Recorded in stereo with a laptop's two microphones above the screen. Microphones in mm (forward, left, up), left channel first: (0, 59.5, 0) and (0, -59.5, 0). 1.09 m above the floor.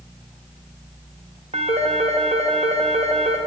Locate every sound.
1.5 s a phone ringing: 60° right (ahead or behind), 0.8 m